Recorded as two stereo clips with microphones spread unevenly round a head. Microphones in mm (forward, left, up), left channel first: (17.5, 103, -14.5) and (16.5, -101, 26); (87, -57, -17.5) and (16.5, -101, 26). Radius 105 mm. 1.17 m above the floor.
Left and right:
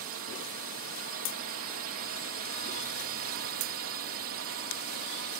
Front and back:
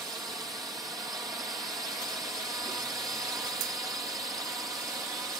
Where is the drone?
85° right.